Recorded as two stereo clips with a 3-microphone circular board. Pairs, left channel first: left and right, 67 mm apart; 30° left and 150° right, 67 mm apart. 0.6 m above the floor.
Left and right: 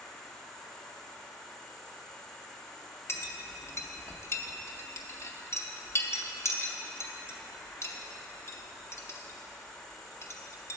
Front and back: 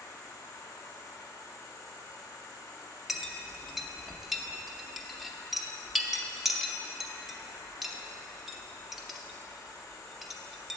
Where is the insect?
10° left, 1.2 m.